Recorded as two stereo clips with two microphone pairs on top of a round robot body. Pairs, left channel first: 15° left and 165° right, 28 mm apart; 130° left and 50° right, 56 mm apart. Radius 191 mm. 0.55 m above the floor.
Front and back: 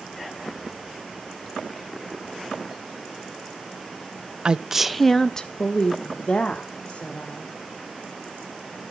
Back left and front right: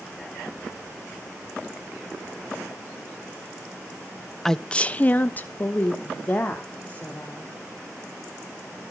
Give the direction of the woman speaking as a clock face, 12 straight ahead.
5 o'clock.